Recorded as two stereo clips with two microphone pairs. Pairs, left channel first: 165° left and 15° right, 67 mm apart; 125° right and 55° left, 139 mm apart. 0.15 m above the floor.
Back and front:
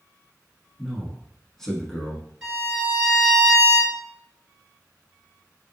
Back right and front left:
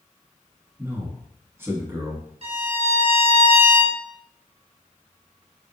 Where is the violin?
70° left, 2.0 m.